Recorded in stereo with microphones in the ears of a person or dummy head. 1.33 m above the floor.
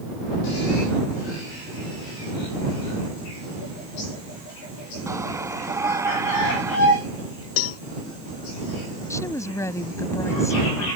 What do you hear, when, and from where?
5.1 s a shout: 15° right (ahead or behind)
7.6 s a cowbell: 85° left
9.1 s a woman speaking: 15° left (ahead or behind)